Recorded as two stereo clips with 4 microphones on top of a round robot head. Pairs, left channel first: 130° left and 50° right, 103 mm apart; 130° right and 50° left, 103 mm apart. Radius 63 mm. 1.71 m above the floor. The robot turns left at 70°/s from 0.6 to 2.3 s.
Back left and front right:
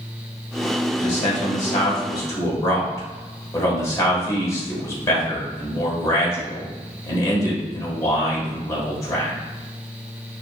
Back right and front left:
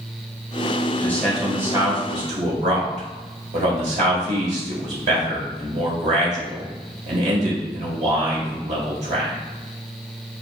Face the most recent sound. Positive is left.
turn(degrees=70)